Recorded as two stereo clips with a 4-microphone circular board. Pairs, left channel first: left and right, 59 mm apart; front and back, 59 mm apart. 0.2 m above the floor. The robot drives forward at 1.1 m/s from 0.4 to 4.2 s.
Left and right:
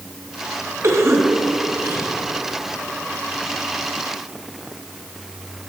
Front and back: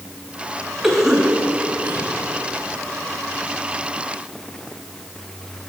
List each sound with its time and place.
0.8 s a cough: 95° right, 1.8 m; by 2.1 s 135° right, 2.5 m